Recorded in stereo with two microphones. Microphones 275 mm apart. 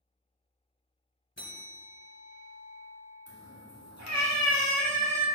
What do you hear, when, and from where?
1.4 s a bell: 40° left (ahead or behind), 2.0 m
3.3 s a cat meowing: 65° left (ahead or behind), 2 m